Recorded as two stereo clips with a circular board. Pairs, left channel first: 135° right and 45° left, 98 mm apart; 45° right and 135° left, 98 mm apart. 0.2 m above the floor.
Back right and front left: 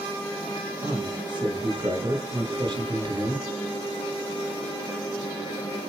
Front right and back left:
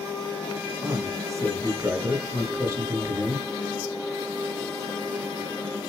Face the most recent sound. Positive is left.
turn(degrees=75)